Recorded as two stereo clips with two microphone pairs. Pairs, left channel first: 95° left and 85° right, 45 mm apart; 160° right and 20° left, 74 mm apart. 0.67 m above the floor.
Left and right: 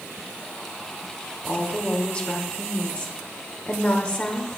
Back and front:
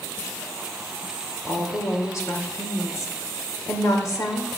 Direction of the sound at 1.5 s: 160° left.